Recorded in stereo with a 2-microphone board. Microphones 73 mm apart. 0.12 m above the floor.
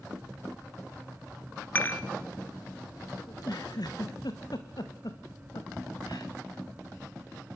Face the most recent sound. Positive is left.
turn(degrees=60)  # may be behind; listen again after turning